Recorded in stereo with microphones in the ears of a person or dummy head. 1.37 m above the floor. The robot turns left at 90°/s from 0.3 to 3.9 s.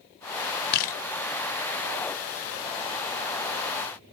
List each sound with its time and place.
0.7 s a camera shutter: 55° left (ahead or behind), 1.0 m; by 1.0 s 30° left (ahead or behind), 1.0 m